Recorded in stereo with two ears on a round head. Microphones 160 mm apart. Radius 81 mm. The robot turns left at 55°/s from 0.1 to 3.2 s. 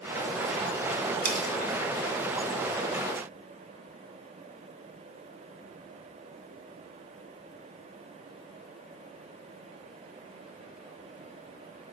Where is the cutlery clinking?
55° right (ahead or behind), 2.5 m; by 1.5 s 45° right (ahead or behind), 2.5 m.